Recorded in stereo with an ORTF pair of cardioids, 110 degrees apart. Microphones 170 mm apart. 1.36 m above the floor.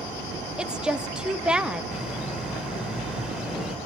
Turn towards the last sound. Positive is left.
turn(degrees=-5)